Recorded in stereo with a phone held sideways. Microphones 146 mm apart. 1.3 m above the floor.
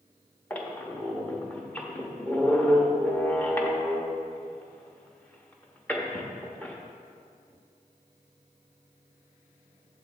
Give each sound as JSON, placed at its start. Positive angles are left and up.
{"t": 0.5, "sound": "a squeak", "side_deg": 10, "distance_m": 0.8}